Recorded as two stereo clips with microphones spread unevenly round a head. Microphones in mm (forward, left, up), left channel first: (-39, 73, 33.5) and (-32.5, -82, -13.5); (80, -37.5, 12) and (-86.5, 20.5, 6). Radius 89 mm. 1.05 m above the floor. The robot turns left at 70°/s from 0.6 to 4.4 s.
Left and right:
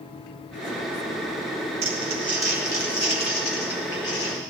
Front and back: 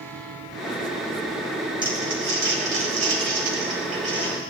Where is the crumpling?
135° right, 4 m; by 4.4 s 45° left, 4 m.